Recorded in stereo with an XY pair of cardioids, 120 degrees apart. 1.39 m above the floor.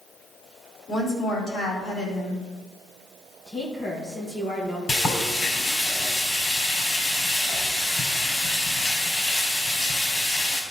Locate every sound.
0.9 s a woman speaking: 45° left, 3.5 m
3.5 s a woman speaking: 25° left, 1.6 m
4.9 s frying: 40° left, 4 m